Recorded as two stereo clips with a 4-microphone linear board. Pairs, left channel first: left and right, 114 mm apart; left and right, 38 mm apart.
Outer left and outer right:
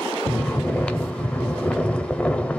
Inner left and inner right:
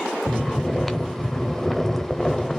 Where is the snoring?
10° left (ahead or behind), 0.6 m.